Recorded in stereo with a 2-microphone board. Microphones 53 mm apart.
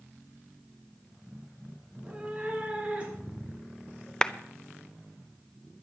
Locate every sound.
1.9 s a cat meowing: 15° right (ahead or behind), 1.7 m; by 4.1 s 25° right (ahead or behind), 4 m
4.2 s a clap: 20° left (ahead or behind), 0.6 m